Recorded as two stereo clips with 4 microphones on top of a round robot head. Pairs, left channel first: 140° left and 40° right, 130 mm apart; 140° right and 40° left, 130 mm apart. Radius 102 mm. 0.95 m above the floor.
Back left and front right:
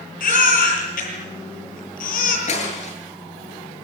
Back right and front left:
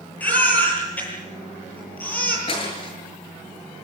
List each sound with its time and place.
0.2 s a baby crying: 145° left, 8.5 m
2.5 s breaking glass: 175° left, 8 m